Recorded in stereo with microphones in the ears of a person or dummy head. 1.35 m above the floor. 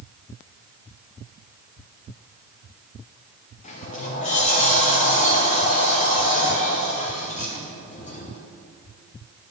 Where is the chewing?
No chewing in this recording.